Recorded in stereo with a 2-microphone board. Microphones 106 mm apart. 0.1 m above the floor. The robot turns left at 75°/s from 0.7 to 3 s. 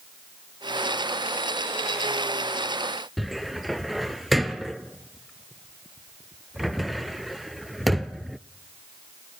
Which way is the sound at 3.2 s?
Centre (ahead or behind).